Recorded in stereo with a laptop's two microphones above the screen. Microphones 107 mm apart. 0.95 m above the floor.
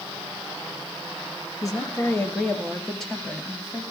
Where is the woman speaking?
30° left (ahead or behind), 1.4 m; by 3.8 s 5° right (ahead or behind), 2.5 m.